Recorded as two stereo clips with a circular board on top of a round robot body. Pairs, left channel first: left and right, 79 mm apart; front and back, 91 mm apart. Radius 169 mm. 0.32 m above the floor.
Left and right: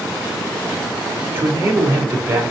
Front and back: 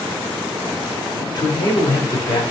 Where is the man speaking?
35° right, 3 m.